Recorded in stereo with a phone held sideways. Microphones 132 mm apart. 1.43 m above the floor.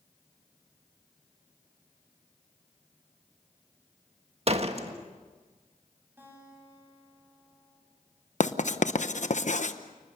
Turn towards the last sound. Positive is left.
turn(degrees=65)  # may be behind; listen again after turning